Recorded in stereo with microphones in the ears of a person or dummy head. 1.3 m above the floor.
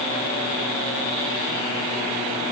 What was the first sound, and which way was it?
Only background noise.